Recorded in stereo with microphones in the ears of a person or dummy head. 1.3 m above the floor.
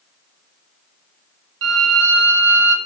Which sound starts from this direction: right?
A violin, at 1.6 s.